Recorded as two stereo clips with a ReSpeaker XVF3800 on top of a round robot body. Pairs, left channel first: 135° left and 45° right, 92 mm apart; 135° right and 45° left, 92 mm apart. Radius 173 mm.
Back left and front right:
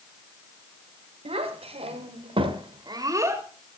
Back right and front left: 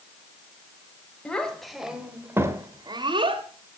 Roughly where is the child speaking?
Ahead right.